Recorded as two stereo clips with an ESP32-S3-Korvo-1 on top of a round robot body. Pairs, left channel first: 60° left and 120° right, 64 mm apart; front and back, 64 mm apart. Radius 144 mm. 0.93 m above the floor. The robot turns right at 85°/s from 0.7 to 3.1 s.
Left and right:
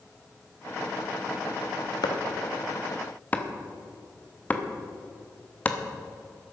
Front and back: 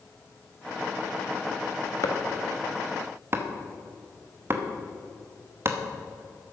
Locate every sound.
2.0 s chopping: 35° left, 1.1 m; by 5.8 s 125° left, 1.1 m